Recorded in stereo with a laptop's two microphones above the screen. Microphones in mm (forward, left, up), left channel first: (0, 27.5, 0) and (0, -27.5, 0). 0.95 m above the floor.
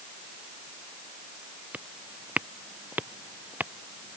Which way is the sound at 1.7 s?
25° right (ahead or behind).